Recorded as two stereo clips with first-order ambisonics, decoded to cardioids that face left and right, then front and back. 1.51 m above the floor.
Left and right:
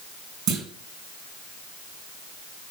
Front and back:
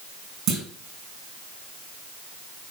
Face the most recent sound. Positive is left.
turn(degrees=-130)